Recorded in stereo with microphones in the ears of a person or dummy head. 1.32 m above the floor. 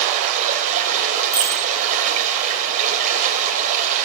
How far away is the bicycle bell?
About 2.5 m.